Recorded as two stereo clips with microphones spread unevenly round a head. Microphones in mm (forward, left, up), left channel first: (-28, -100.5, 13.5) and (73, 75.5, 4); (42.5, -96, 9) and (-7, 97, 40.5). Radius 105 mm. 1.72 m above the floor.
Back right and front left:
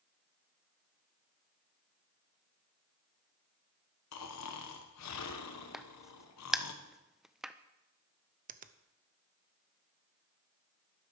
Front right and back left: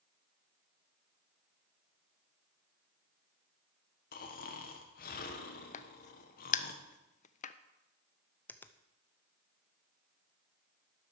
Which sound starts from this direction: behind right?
Snoring, at 4.1 s.